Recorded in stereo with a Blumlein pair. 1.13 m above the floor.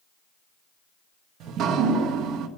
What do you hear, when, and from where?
1.4 s dripping: 35° right, 1.3 m